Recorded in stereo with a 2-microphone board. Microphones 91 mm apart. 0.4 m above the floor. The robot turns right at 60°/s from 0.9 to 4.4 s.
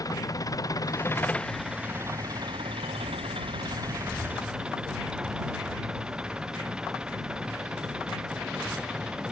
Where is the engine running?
140° left; by 9.3 s 10° right.